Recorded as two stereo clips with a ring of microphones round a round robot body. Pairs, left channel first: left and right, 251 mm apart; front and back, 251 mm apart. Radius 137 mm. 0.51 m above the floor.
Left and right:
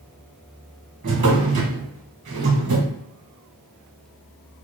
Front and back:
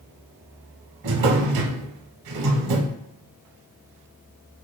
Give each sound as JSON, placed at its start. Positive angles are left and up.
{"t": 1.0, "sound": "a drawer", "azimuth_deg": -155, "distance_m": 1.0}